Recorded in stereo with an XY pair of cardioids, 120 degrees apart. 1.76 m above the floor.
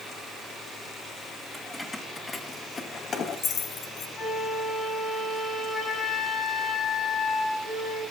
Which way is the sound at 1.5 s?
10° left.